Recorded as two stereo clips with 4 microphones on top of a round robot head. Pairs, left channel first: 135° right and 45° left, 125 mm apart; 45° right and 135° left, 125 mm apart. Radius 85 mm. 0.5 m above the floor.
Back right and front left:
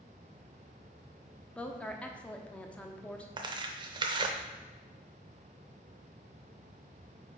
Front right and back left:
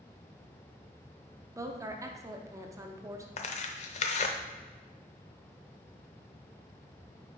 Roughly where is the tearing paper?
Ahead.